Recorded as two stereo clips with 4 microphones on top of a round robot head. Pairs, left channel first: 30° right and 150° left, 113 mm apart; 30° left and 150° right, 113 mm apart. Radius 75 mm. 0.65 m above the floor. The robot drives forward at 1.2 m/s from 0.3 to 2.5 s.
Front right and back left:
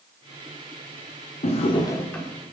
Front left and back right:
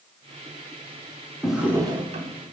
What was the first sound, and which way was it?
A drawer, 55° right.